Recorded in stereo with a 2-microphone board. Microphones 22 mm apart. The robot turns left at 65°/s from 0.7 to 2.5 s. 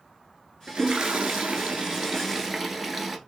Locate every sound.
0.7 s a toilet flushing: 45° right, 0.9 m; by 3.2 s 160° right, 0.9 m